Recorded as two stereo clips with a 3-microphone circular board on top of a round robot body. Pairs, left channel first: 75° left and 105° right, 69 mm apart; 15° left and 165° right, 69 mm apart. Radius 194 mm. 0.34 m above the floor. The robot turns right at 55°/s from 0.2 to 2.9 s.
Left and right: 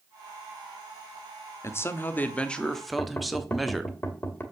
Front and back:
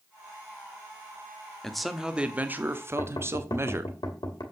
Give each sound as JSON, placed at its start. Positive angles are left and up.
{"t": 1.6, "sound": "a man speaking", "azimuth_deg": 95, "distance_m": 1.6}
{"t": 3.0, "sound": "knocking", "azimuth_deg": 20, "distance_m": 2.5}